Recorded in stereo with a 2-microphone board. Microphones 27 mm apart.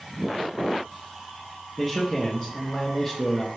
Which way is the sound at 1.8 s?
15° left (ahead or behind).